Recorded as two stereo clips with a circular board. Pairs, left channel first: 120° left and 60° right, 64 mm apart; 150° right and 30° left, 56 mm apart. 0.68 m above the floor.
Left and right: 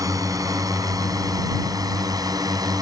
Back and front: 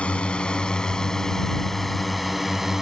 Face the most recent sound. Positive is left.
turn(degrees=-55)